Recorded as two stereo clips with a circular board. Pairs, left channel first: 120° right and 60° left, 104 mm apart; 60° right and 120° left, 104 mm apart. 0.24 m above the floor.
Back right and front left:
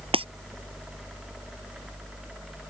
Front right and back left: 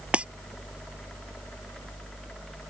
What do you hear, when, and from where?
0.1 s breaking glass: 40° left